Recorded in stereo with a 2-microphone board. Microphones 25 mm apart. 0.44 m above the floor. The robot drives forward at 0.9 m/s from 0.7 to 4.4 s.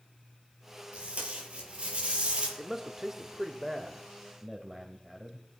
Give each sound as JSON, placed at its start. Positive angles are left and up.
{"t": 0.9, "sound": "tape being pulled", "side_deg": -60, "distance_m": 6.0}
{"t": 2.6, "sound": "a man speaking", "side_deg": -15, "distance_m": 1.1}